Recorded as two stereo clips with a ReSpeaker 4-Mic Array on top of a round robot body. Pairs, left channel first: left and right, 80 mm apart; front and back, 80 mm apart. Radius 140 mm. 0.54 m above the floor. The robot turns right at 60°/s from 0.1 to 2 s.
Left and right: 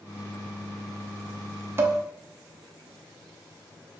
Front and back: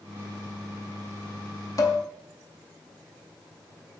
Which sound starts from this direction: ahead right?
Dishes clattering, at 1.8 s.